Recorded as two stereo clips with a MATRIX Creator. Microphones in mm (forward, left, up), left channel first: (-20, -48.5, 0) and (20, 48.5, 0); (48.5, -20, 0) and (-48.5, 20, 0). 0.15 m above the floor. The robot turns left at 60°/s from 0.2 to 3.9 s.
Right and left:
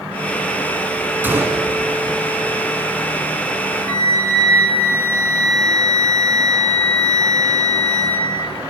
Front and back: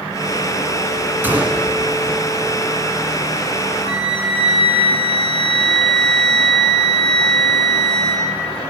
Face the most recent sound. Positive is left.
turn(degrees=170)